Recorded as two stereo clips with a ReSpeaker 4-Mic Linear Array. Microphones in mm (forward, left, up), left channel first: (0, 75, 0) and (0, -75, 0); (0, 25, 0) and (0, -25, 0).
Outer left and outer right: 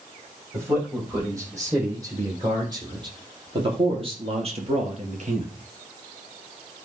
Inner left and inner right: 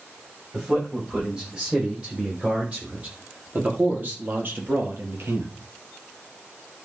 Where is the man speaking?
20° right (ahead or behind), 7.5 m; by 5.5 s 60° right (ahead or behind), 3 m.